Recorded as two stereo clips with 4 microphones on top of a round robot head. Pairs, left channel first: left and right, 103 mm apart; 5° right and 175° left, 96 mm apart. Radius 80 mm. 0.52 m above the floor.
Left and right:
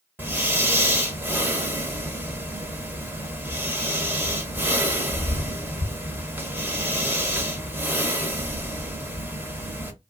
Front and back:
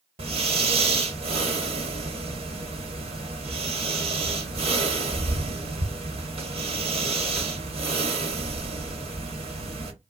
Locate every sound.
0.2 s breathing: 160° right, 1.2 m